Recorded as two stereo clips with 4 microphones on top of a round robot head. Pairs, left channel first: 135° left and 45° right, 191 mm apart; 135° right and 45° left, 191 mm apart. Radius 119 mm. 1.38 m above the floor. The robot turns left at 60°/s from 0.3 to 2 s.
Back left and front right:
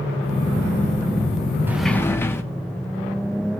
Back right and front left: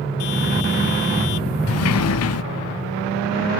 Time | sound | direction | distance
1.7 | a sliding door | 125° right | 0.6 m